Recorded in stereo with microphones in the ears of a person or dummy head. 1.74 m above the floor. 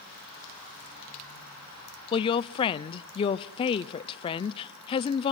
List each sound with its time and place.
2.1 s a woman speaking: 35° left (ahead or behind), 0.6 m